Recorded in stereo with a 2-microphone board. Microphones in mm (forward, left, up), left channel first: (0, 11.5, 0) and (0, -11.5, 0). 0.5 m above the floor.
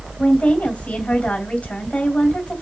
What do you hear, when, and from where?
0.2 s a woman speaking: 75° left (ahead or behind), 2 m